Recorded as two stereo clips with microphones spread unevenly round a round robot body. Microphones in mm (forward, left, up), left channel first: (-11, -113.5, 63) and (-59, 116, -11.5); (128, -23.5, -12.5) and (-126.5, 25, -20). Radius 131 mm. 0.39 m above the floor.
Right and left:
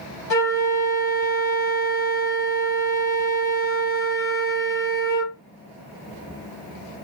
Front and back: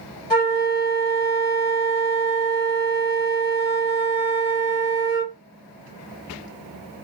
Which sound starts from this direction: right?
A flute, at 0.3 s.